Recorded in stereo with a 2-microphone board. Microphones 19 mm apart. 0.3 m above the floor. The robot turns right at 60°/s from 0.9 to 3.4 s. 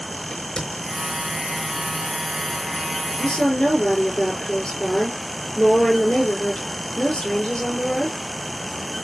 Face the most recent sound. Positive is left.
turn(degrees=55)  # may be behind; listen again after turning